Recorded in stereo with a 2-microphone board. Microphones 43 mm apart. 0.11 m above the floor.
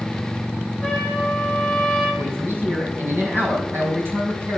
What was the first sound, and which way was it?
A trumpet, 10° left (ahead or behind).